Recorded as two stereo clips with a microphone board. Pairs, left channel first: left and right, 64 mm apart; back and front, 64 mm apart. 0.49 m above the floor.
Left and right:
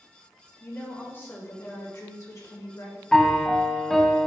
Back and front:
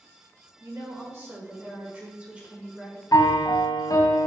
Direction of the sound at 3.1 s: 175° left.